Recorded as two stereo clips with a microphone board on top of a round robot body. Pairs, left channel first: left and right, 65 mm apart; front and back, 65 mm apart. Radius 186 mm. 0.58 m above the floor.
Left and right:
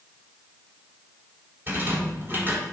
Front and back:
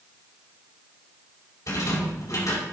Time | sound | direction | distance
1.7 | a rattle | 35° right | 4 m